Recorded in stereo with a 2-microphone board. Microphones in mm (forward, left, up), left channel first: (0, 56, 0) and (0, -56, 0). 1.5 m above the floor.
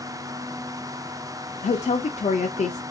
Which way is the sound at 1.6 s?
80° left.